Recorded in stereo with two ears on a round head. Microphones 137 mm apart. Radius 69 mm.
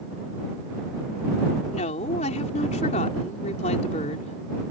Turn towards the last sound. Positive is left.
turn(degrees=50)  # may be behind; listen again after turning